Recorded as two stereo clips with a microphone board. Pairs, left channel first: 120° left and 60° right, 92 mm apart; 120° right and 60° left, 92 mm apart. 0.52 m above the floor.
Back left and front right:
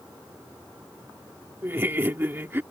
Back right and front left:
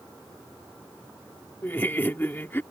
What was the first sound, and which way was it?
Laughter, 85° right.